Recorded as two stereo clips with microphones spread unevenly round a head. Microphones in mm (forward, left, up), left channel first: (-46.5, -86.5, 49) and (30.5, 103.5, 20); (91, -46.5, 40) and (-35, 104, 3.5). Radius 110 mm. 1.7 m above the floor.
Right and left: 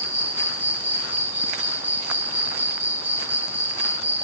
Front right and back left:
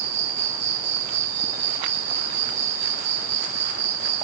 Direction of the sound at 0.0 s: 155° left.